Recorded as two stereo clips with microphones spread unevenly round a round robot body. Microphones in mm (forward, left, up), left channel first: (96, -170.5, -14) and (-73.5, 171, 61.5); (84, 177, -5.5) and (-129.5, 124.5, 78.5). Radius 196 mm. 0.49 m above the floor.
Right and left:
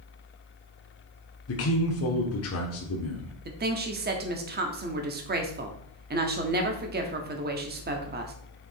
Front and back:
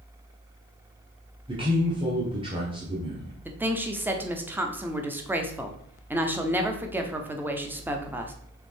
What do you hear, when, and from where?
1.5 s a man speaking: 80° right, 1.1 m
3.5 s a woman speaking: 65° left, 1.0 m